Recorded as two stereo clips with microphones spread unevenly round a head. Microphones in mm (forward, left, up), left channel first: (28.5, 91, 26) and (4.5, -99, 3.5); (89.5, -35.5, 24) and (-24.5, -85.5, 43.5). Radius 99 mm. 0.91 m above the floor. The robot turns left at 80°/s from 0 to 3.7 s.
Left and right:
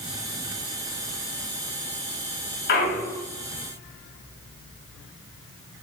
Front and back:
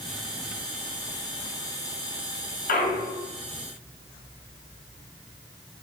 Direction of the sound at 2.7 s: 45° left.